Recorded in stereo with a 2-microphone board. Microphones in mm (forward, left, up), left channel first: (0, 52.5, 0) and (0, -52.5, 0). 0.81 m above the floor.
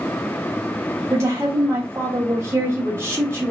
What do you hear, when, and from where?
1.1 s a woman speaking: 25° right (ahead or behind), 1.3 m